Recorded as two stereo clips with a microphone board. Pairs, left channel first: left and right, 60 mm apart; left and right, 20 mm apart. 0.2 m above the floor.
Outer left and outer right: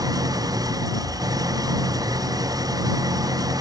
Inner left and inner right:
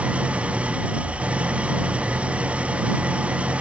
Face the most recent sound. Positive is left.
turn(degrees=-85)